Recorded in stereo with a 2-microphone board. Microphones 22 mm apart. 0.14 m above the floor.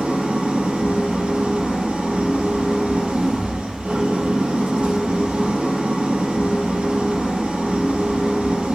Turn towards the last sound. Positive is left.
turn(degrees=-55)  # may be behind; listen again after turning